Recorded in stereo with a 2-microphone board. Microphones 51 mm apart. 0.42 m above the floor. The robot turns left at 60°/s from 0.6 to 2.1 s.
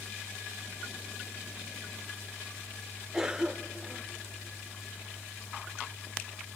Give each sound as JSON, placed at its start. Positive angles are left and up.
{"t": 3.1, "sound": "a cough", "side_deg": -10, "distance_m": 0.8}